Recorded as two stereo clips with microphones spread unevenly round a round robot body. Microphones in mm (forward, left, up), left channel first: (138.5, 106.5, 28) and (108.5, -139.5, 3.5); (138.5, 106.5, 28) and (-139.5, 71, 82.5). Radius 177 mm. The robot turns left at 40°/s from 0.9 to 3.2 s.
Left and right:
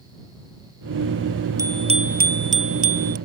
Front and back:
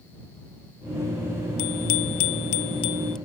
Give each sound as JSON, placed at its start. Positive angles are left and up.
{"t": 1.6, "sound": "a bicycle bell", "azimuth_deg": -20}